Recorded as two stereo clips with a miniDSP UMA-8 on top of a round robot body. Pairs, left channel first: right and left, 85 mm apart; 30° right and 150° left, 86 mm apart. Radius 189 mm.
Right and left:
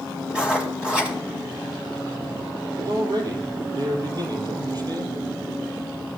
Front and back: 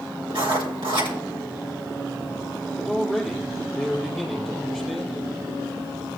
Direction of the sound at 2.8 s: 60° left.